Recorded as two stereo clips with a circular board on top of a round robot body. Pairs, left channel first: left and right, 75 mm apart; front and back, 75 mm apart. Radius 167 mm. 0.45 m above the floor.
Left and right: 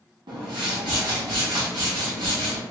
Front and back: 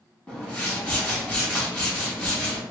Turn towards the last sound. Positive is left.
turn(degrees=-70)